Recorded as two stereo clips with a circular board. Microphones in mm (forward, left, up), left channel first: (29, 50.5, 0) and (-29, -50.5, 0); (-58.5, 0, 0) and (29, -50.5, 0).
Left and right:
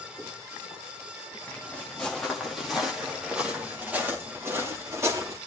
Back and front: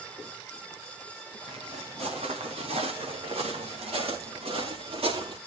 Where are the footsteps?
20° right, 5.5 m; by 5.4 s 55° right, 6 m.